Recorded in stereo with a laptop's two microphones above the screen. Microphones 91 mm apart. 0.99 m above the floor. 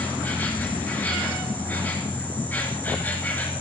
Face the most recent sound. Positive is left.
turn(degrees=20)  # may be behind; listen again after turning